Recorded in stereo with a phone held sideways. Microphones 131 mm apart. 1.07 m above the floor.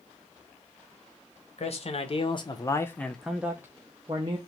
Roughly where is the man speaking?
Left.